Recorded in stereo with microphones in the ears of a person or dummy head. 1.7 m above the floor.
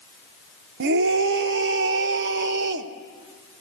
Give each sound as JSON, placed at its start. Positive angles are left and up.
{"t": 0.8, "sound": "a scream", "side_deg": -60, "distance_m": 1.0}